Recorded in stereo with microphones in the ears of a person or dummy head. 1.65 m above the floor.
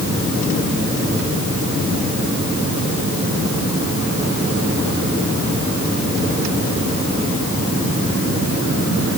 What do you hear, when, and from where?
Only background noise.